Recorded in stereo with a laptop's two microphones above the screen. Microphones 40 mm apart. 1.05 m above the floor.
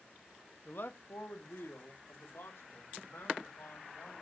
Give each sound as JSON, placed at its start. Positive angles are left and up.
{"t": 0.7, "sound": "a man speaking", "side_deg": 55, "distance_m": 1.3}